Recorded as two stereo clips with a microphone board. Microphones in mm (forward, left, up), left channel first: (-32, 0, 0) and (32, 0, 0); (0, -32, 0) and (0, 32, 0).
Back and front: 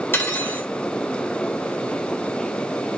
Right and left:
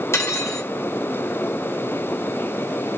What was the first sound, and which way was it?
Cutlery clinking, 130° right.